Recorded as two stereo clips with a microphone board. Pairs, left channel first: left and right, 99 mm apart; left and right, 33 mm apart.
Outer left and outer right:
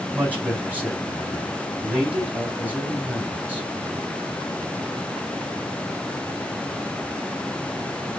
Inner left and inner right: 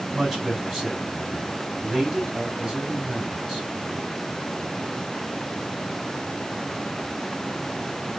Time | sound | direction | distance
0.1 | a man speaking | 15° right (ahead or behind) | 3.5 m